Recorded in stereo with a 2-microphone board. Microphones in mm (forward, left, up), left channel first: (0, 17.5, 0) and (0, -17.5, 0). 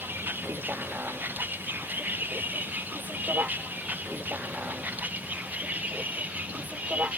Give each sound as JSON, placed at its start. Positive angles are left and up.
{"t": 0.0, "sound": "a vehicle", "side_deg": -70}